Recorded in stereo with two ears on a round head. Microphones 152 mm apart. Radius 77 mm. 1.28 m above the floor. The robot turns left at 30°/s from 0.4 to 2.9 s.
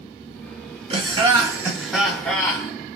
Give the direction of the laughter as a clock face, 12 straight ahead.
5 o'clock.